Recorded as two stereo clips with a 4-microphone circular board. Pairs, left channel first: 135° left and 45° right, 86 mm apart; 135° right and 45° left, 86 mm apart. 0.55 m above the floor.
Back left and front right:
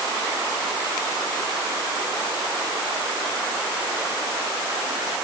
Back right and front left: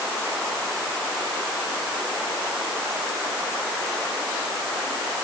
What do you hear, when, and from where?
Only background noise.